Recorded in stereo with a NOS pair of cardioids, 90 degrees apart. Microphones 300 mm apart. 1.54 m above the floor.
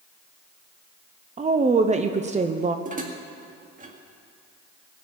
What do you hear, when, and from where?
1.4 s a woman speaking: 25° right, 0.8 m
2.9 s dishes clattering: 30° right, 1.9 m